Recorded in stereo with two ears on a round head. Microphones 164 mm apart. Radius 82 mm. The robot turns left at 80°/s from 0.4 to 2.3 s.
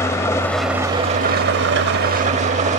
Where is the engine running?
15° left, 0.7 m; by 2.8 s 135° right, 0.7 m.